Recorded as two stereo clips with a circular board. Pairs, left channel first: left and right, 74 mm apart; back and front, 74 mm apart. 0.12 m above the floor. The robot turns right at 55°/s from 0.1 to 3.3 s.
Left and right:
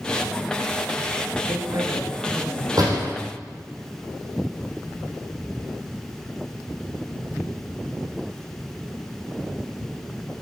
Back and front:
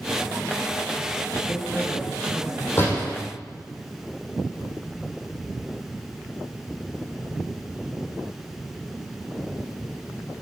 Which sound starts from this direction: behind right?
A door slam, at 2.8 s.